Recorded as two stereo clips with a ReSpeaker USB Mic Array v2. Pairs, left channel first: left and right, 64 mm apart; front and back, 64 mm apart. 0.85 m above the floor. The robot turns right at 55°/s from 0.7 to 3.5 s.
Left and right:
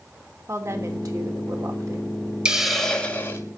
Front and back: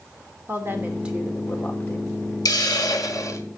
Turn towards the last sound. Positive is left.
turn(degrees=45)